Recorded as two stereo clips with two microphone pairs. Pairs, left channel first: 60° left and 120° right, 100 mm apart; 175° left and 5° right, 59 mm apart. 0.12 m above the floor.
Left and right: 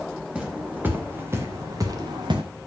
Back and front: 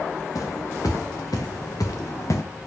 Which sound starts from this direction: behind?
Footsteps, at 0.3 s.